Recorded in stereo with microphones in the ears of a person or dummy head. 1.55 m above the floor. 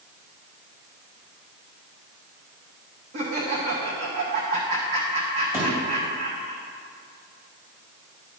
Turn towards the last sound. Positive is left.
turn(degrees=-10)  # may be behind; listen again after turning